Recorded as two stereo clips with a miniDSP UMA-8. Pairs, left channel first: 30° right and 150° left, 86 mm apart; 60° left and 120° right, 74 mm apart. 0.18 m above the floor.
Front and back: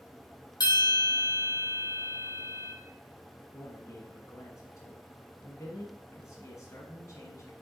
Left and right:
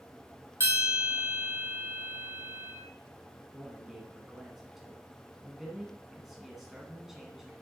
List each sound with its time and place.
0.6 s a bell: 70° right, 3 m
3.5 s a man speaking: 35° right, 1.4 m